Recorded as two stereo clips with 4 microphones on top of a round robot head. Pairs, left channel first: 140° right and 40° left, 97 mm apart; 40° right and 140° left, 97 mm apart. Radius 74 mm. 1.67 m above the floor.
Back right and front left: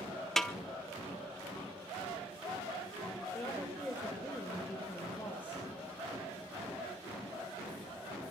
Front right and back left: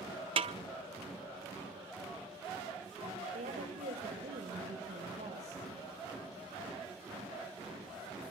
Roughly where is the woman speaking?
Behind left.